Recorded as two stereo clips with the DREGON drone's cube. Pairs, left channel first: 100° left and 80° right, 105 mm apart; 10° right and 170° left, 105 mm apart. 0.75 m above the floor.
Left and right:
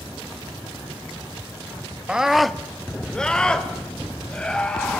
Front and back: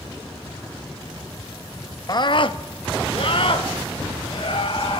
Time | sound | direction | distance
2.1 | a scream | 5° right | 0.6 m